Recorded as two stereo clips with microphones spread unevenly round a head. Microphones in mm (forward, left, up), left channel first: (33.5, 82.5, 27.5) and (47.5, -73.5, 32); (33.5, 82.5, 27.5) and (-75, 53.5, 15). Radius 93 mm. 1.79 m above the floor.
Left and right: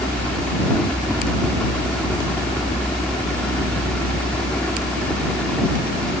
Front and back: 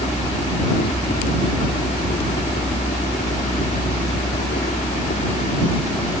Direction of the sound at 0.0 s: 10° left.